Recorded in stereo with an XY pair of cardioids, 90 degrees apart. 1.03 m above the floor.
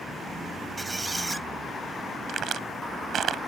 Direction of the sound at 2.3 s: 70° right.